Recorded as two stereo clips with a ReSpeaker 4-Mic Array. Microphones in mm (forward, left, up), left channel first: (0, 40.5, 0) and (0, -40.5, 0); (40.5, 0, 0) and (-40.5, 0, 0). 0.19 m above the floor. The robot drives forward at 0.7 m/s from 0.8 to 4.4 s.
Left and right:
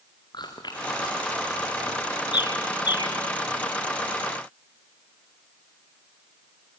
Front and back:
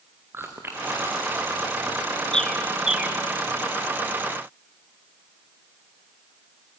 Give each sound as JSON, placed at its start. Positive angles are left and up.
{"t": 0.3, "sound": "chewing", "azimuth_deg": 120, "distance_m": 3.5}
{"t": 2.3, "sound": "a bird", "azimuth_deg": 80, "distance_m": 1.3}